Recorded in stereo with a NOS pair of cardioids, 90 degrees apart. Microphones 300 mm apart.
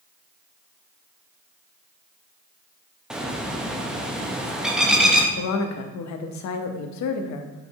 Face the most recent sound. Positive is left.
turn(degrees=70)